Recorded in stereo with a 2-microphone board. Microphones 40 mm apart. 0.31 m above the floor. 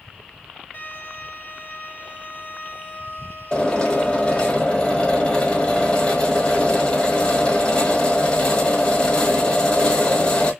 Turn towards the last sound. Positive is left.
turn(degrees=25)  # may be behind; listen again after turning